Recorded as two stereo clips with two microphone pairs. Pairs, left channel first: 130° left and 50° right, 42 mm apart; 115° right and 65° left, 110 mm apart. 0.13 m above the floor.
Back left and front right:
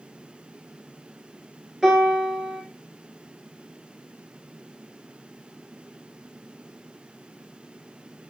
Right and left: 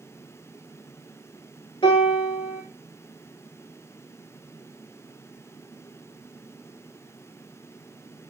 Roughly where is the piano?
Behind right.